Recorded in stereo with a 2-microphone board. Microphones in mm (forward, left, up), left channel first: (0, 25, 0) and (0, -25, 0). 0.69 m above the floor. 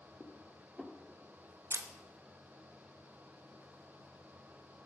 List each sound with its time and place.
0.2 s dishes clattering: 5° left (ahead or behind), 1.0 m
1.7 s a camera shutter: 65° right (ahead or behind), 0.7 m